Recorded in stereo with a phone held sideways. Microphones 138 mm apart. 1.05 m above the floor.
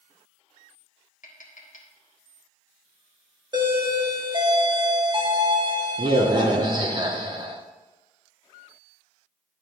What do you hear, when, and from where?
1.2 s tapping: 70° left (ahead or behind), 1.6 m
3.5 s a doorbell: 35° right (ahead or behind), 1.2 m